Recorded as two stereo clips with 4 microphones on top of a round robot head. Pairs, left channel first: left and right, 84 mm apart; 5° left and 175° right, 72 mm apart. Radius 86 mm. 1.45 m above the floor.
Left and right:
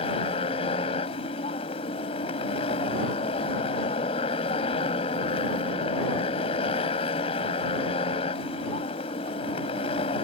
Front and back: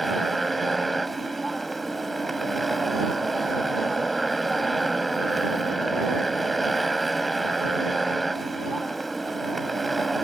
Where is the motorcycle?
95° left.